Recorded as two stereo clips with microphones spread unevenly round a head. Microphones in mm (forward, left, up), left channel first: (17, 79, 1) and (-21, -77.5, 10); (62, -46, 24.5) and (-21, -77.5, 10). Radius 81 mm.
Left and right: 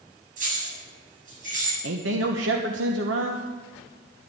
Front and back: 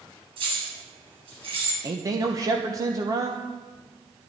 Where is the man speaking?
110° right, 1.3 m.